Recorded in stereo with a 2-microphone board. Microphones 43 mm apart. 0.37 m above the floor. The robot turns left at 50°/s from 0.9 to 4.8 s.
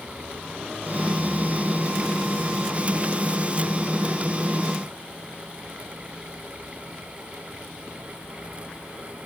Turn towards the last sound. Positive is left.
No sound to turn to.